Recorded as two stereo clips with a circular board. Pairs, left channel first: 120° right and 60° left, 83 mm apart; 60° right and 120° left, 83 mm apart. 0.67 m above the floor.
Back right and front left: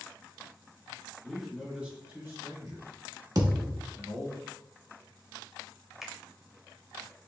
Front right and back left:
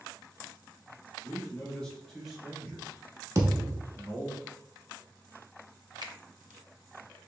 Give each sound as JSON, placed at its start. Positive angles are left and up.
{"t": 1.2, "sound": "a man speaking", "azimuth_deg": -35, "distance_m": 1.3}
{"t": 3.4, "sound": "a thud", "azimuth_deg": 85, "distance_m": 0.8}
{"t": 6.0, "sound": "a finger snap", "azimuth_deg": 145, "distance_m": 0.8}